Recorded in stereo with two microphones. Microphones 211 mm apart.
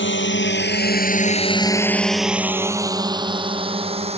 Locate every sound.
0.0 s a drone: 65° left (ahead or behind); by 4.2 s 30° right (ahead or behind)